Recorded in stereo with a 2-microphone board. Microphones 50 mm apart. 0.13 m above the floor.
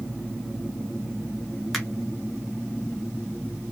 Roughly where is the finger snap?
Centre.